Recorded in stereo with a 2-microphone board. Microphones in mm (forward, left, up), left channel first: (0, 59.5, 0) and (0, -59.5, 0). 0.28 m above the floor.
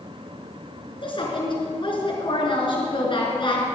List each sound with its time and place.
1.0 s a woman speaking: 45° left (ahead or behind), 3.5 m